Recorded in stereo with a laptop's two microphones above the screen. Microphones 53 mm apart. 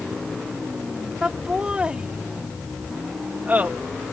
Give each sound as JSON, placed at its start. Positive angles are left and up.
{"t": 1.2, "sound": "laughter", "side_deg": -20}